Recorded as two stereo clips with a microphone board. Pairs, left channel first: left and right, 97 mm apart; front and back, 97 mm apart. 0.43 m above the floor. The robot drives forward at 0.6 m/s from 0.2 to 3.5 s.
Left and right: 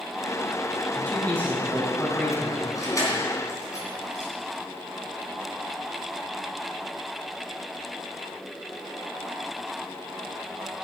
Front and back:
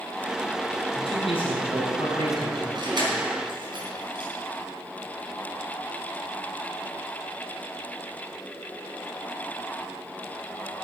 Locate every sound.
0.9 s a man speaking: 15° left, 3.5 m; by 2.6 s 20° left, 3 m
2.8 s keys jangling: 140° left, 3 m; by 4.3 s 145° left, 3.5 m